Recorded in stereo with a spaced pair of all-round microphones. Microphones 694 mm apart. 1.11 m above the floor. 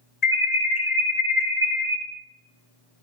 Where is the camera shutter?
No camera shutter in this recording.